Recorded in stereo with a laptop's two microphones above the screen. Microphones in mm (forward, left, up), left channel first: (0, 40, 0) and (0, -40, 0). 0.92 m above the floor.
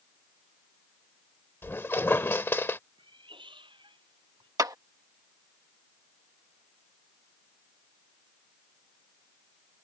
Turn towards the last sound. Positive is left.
turn(degrees=-50)  # may be behind; listen again after turning